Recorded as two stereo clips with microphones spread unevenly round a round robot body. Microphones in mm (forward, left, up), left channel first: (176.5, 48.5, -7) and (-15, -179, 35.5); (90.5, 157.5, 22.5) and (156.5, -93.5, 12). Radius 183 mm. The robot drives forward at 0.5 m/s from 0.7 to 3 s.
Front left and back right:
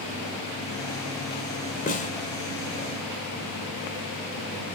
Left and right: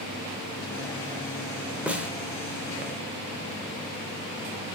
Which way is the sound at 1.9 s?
5° left.